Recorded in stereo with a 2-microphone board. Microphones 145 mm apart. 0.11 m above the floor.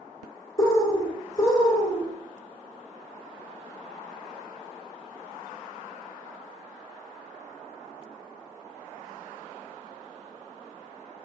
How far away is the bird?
About 0.8 m.